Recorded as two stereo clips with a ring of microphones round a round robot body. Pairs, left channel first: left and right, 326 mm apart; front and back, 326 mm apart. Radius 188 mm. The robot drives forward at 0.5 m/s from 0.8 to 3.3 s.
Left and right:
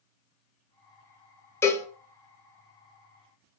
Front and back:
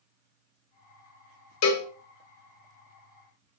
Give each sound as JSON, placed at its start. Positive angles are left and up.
{"t": 1.6, "sound": "a cowbell", "azimuth_deg": 10, "distance_m": 0.8}